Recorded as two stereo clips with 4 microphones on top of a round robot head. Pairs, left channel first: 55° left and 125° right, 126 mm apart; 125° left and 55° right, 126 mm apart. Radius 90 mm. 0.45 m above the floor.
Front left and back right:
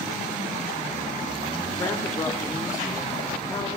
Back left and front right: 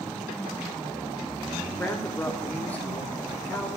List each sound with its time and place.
1.8 s a woman speaking: 65° left, 1.4 m